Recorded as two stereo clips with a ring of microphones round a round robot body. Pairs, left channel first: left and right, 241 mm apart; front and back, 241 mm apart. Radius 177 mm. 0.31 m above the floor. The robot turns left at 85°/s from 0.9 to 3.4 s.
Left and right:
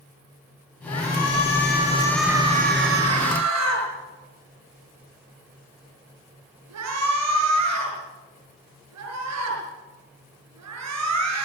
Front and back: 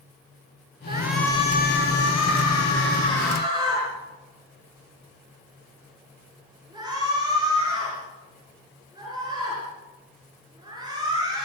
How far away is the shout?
About 7 m.